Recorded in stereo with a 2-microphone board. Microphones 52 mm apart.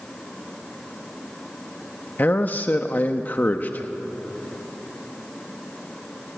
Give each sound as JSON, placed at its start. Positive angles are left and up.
{"t": 2.2, "sound": "a man speaking", "side_deg": 35, "distance_m": 0.9}